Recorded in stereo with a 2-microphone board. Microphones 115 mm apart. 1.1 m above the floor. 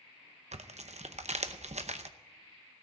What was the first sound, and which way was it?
Tearing paper, 75° right (ahead or behind).